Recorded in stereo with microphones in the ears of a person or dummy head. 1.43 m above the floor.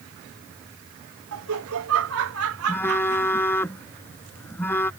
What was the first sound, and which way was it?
Laughter, 85° right.